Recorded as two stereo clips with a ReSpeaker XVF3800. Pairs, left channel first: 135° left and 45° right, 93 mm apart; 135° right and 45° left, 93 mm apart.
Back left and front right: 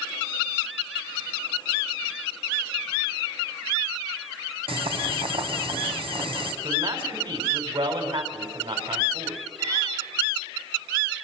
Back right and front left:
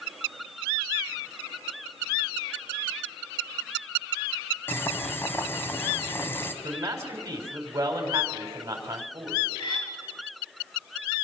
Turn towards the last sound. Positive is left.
turn(degrees=-95)